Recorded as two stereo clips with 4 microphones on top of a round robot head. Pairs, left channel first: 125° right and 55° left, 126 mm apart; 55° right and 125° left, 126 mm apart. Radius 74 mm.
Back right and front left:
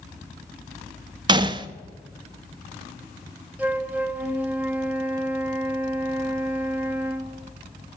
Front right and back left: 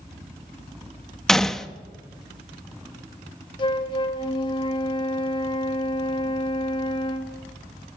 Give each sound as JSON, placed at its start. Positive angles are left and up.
{"t": 1.3, "sound": "a gunshot", "azimuth_deg": 30, "distance_m": 0.7}
{"t": 3.6, "sound": "a flute", "azimuth_deg": -20, "distance_m": 1.0}